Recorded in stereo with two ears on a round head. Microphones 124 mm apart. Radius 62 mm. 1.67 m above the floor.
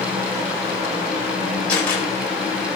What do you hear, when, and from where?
1.7 s a camera shutter: 10° left (ahead or behind), 8 m